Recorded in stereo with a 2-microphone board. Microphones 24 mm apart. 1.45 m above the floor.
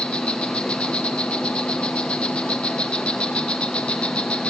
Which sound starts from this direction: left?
An insect, at 0.0 s.